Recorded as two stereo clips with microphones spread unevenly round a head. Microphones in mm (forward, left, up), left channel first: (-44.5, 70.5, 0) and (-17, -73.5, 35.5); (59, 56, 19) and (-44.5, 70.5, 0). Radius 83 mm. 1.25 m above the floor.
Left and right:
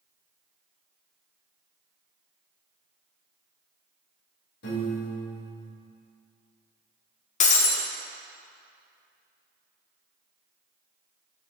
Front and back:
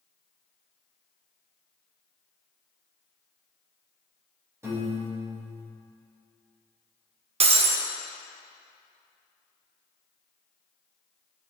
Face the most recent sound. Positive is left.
turn(degrees=145)